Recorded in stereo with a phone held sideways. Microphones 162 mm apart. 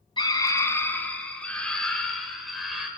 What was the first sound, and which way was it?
A scream, 30° left (ahead or behind).